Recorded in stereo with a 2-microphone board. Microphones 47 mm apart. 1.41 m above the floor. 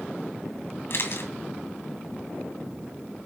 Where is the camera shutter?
55° left (ahead or behind), 2.5 m.